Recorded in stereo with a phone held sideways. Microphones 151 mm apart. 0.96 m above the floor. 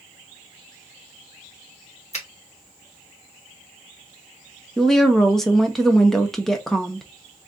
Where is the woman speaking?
5° left (ahead or behind), 0.5 m.